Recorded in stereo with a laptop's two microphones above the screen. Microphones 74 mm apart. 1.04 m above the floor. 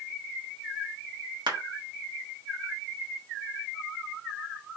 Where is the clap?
75° right (ahead or behind), 1.2 m.